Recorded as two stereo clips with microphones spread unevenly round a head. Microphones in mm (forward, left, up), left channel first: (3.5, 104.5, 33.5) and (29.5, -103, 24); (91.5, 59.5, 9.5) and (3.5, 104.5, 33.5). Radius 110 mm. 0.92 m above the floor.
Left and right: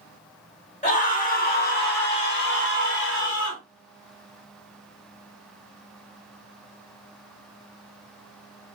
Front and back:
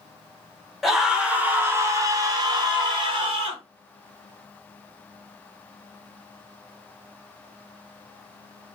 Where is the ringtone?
I don't hear a ringtone.